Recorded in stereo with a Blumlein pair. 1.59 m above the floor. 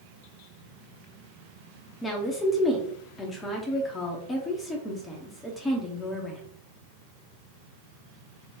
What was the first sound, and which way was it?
A woman speaking, 15° left.